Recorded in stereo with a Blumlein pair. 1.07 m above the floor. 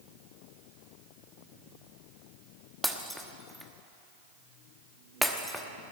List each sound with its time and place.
2.8 s breaking glass: straight ahead, 1.1 m